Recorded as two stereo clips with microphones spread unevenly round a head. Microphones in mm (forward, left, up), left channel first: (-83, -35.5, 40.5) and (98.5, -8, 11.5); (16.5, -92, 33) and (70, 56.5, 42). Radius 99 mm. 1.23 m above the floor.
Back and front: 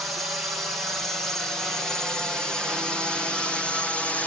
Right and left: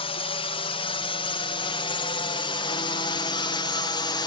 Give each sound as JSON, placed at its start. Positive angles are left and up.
{"t": 0.0, "sound": "a drone", "azimuth_deg": -75}